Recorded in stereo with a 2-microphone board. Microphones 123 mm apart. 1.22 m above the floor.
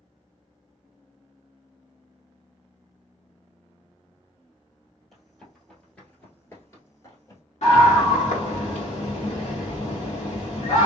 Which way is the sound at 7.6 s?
65° left (ahead or behind).